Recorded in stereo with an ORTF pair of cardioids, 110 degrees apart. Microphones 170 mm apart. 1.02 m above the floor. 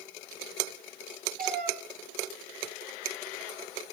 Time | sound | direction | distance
1.4 | a cat meowing | 55° right | 5.5 m